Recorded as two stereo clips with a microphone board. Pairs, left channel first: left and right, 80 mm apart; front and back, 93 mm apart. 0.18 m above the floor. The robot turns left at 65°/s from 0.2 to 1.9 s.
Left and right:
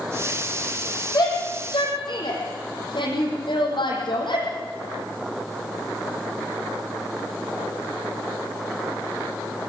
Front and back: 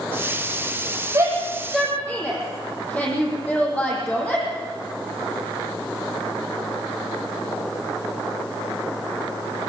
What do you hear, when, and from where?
1.1 s a shout: 125° left, 8 m; by 4.5 s 75° left, 8 m